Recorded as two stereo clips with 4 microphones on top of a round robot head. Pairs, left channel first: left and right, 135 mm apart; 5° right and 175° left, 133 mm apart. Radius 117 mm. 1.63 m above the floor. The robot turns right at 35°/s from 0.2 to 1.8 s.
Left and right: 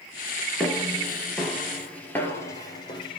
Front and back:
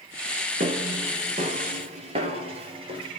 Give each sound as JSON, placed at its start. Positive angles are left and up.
{"t": 0.6, "sound": "footsteps", "azimuth_deg": 175, "distance_m": 2.0}